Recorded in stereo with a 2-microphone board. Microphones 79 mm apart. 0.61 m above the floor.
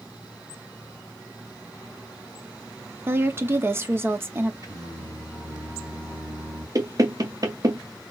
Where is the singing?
50° right (ahead or behind), 2.5 m.